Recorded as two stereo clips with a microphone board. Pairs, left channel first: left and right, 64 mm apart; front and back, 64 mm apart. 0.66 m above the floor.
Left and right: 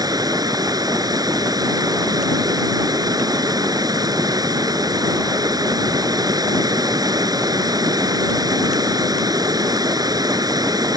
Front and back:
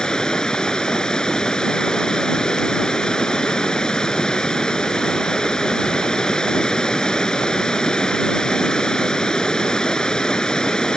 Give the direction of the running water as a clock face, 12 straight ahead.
3 o'clock.